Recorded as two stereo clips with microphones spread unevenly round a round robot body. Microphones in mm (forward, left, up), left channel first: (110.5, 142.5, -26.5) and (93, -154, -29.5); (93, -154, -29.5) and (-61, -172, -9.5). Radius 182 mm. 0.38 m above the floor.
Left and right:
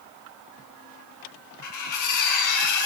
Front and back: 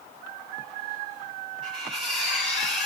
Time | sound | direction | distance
1.6 | cutlery clinking | 115° left | 0.9 m